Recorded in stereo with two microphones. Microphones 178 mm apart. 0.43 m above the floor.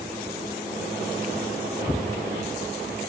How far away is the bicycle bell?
I don't hear a bicycle bell.